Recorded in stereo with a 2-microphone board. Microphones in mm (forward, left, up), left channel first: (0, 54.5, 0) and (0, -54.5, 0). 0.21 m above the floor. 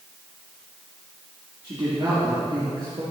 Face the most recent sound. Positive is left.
turn(degrees=-55)  # may be behind; listen again after turning